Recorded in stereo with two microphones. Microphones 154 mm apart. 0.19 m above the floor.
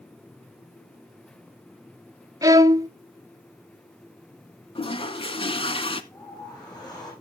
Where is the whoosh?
30° left (ahead or behind), 6.5 m.